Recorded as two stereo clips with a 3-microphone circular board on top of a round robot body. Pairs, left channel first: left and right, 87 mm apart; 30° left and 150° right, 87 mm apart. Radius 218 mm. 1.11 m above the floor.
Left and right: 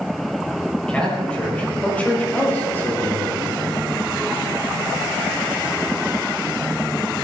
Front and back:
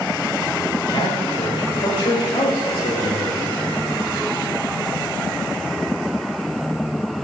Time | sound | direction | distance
0.9 | a man speaking | 10° left | 6 m